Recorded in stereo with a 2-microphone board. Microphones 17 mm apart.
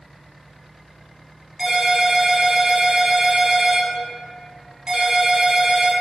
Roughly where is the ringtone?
Right.